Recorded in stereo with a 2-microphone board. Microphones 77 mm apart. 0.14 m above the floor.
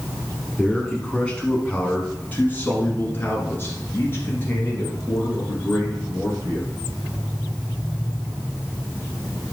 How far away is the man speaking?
About 1.3 m.